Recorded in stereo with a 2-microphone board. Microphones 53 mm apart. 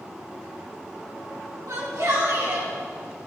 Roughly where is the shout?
Right.